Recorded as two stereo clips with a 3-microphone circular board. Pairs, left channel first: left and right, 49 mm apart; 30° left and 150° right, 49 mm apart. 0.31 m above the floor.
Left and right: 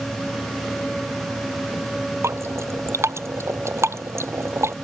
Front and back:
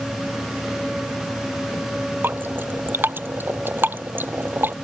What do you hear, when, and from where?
2.2 s dripping: 110° right